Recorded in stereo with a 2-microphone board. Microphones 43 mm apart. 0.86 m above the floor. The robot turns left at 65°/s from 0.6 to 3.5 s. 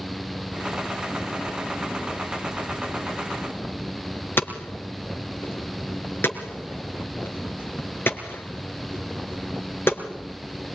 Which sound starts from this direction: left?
Hammering, at 4.4 s.